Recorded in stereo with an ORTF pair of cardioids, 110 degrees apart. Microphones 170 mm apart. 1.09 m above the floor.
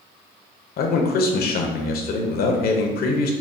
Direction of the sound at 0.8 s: 60° left.